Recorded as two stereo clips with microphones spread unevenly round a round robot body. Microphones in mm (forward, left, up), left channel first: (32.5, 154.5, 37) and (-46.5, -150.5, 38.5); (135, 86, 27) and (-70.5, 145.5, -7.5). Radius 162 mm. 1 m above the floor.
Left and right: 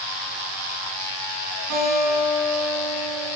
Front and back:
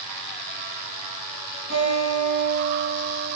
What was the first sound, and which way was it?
A guitar, 140° right.